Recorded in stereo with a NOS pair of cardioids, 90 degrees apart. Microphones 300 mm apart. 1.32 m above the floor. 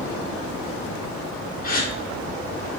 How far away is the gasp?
About 1.4 m.